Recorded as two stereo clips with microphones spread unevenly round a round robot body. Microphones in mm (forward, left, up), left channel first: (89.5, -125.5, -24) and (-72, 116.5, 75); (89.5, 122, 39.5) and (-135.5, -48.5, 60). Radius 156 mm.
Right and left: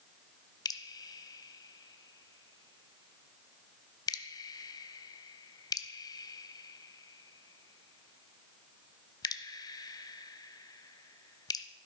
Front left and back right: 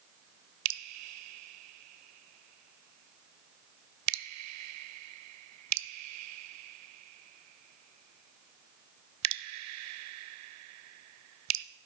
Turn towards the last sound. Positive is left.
turn(degrees=-120)